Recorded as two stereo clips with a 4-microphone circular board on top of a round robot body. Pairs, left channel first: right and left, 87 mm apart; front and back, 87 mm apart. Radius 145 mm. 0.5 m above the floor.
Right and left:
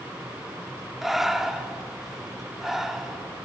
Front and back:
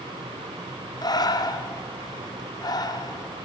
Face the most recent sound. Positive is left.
turn(degrees=5)